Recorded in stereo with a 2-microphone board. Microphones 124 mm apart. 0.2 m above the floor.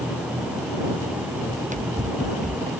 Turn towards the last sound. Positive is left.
turn(degrees=-70)  # may be behind; listen again after turning